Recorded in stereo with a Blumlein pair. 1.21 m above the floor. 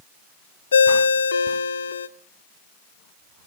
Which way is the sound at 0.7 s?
70° left.